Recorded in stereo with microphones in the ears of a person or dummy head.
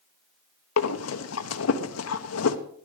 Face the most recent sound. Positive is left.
turn(degrees=80)